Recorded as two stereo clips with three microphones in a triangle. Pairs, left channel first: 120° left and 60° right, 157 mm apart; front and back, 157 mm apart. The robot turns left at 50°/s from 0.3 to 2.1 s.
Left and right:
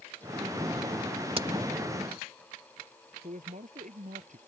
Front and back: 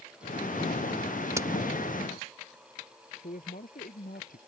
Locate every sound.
1.4 s a crack: 110° right; by 1.5 s 120° right
3.2 s a man speaking: 25° right